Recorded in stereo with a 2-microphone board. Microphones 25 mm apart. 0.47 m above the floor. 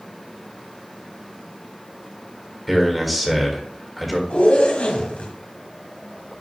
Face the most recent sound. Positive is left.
turn(degrees=75)  # may be behind; listen again after turning